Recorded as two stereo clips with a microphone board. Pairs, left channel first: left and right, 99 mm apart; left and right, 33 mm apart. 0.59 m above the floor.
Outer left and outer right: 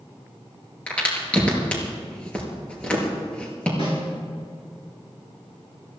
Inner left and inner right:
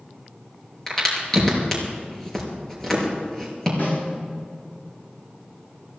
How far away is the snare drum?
About 5 m.